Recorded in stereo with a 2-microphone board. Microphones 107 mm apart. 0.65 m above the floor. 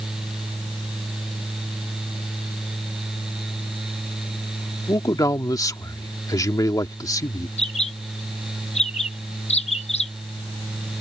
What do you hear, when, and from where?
4.9 s a man speaking: 35° left (ahead or behind)
7.6 s a bird: 85° left